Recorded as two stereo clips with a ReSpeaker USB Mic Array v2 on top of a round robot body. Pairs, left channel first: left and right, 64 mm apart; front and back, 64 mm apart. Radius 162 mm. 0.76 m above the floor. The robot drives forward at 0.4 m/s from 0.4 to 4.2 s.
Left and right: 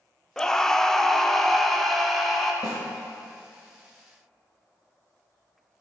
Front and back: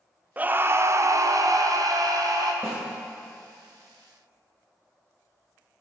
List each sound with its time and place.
0.4 s a scream: 160° left, 0.5 m; by 2.5 s 175° left, 1.1 m
2.6 s a snare drum: 120° left, 0.9 m; by 2.8 s 125° left, 0.9 m